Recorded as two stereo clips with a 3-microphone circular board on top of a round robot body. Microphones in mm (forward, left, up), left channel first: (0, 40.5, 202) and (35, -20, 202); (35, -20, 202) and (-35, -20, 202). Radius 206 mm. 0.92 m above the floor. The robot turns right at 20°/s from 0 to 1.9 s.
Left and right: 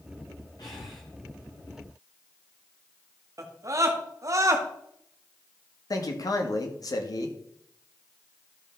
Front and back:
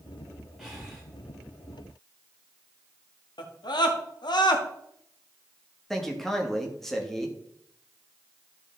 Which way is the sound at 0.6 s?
95° left.